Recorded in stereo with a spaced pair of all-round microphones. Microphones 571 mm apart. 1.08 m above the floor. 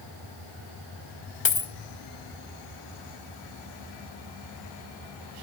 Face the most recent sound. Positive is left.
turn(degrees=55)  # may be behind; listen again after turning